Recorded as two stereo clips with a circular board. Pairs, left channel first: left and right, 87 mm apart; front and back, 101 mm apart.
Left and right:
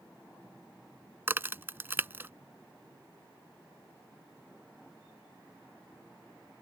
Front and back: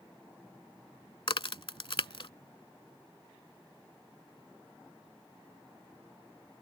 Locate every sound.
1.3 s a crack: 25° right